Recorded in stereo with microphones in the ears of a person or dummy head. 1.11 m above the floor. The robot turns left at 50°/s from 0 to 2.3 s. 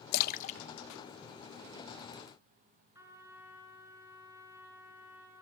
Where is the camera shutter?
No camera shutter in this recording.